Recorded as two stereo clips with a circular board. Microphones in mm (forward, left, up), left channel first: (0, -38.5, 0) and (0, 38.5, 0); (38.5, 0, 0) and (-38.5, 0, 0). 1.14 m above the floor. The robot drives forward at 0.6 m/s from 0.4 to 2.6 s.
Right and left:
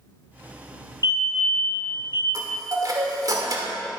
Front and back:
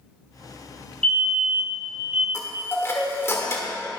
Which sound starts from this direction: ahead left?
A chime, at 2.3 s.